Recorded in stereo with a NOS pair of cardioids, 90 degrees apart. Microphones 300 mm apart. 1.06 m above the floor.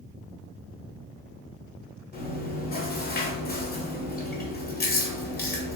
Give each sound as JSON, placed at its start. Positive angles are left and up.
{"t": 2.1, "sound": "chewing", "azimuth_deg": 30, "distance_m": 0.9}